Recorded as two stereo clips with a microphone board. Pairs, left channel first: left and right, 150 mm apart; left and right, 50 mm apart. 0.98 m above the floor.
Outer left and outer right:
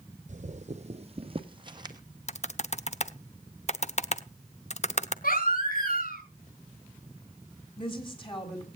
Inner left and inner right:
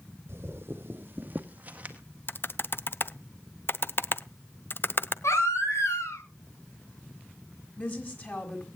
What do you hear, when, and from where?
0.3 s footsteps: 50° right (ahead or behind), 1.5 m; by 2.0 s 25° right (ahead or behind), 1.9 m
2.3 s typing on a keyboard: 50° left (ahead or behind), 0.8 m
5.2 s a baby crying: 75° left (ahead or behind), 5.5 m
7.8 s a woman speaking: 35° left (ahead or behind), 6.5 m